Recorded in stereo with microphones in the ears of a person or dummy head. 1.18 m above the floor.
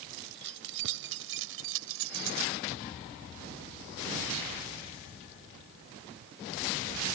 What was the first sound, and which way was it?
Keys jangling, 60° right (ahead or behind).